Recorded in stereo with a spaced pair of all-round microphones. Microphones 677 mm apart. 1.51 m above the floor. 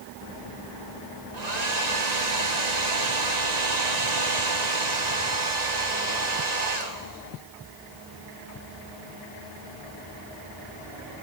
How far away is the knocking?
No knocking in this recording.